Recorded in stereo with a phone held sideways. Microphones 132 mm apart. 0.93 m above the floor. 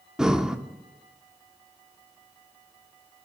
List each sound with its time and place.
0.2 s breathing: 5° right (ahead or behind), 0.7 m